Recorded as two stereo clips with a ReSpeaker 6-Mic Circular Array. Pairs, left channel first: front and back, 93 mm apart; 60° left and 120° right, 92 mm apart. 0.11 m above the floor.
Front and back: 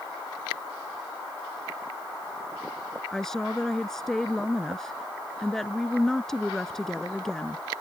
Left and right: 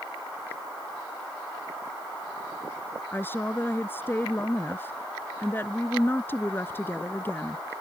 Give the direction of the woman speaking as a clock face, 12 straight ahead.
9 o'clock.